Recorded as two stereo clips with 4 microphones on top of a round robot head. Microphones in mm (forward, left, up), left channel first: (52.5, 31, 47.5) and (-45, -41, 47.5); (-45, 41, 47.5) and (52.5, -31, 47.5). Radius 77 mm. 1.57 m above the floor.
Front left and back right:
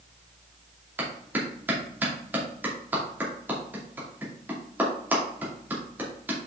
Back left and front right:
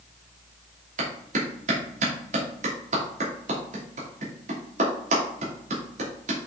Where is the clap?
70° right, 2.5 m.